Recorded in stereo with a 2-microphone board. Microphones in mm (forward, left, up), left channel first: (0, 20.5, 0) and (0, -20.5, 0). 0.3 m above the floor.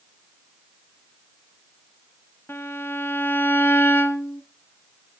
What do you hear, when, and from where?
2.5 s a violin: 65° left (ahead or behind), 0.9 m